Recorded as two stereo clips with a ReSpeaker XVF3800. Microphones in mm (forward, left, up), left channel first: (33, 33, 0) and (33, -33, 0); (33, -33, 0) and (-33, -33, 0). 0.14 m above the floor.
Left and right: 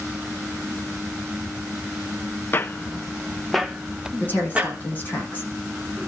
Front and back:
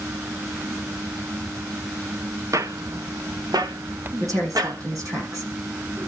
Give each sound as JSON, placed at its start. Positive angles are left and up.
{"t": 2.5, "sound": "footsteps", "azimuth_deg": 145, "distance_m": 0.8}
{"t": 4.2, "sound": "a woman speaking", "azimuth_deg": 150, "distance_m": 7.5}